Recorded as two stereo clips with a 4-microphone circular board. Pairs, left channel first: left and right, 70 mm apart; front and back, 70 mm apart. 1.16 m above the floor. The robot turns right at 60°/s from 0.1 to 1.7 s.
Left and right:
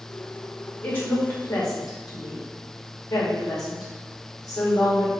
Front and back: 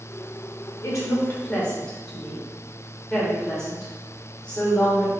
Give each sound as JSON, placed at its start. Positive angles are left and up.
{"t": 0.8, "sound": "a woman speaking", "azimuth_deg": 25, "distance_m": 1.8}